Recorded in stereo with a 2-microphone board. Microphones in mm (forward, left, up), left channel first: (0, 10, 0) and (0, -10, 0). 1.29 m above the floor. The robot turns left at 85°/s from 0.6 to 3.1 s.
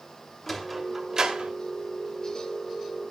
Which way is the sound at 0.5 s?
15° left (ahead or behind).